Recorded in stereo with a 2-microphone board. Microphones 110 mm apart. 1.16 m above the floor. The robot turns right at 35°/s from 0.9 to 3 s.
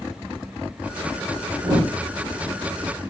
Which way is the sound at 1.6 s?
30° right (ahead or behind).